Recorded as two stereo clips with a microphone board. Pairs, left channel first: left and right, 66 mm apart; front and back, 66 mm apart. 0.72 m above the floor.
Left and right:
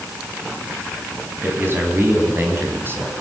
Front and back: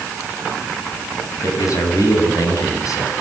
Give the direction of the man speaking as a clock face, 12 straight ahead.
1 o'clock.